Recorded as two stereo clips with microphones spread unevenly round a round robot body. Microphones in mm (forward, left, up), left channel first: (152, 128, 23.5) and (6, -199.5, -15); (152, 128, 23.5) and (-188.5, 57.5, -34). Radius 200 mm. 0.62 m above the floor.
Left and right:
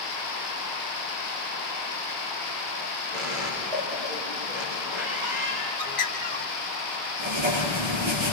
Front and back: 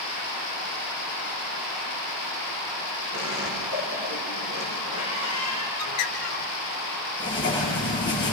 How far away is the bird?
About 3 m.